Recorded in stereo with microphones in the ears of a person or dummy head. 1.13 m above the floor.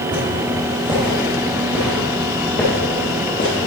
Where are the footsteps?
30° right (ahead or behind), 1.9 m; by 3.6 s 35° left (ahead or behind), 1.4 m.